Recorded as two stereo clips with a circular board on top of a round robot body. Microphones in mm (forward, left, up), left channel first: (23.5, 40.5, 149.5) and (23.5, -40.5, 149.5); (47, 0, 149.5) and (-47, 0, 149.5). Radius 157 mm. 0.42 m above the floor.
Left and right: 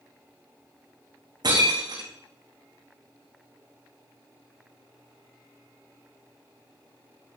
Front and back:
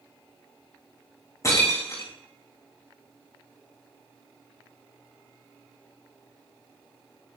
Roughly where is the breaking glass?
Ahead right.